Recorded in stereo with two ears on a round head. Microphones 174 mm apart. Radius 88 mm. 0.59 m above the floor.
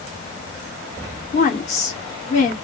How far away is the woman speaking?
About 1.1 m.